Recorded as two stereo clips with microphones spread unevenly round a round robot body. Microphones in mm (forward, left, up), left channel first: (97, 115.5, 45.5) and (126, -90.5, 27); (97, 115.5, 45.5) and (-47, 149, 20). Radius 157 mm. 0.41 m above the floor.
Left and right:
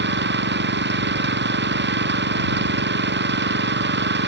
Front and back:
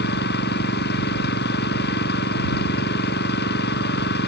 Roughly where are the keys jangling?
No keys jangling in this recording.